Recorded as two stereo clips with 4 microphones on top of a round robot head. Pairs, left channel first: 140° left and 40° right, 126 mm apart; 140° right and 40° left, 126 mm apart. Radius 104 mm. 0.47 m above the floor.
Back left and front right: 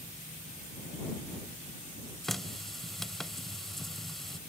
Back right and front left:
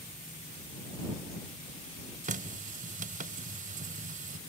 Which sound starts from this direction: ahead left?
A running tap, at 2.2 s.